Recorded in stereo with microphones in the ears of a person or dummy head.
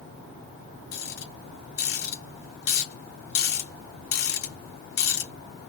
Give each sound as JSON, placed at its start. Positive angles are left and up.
{"t": 0.9, "sound": "a rattle", "side_deg": 80, "distance_m": 3.0}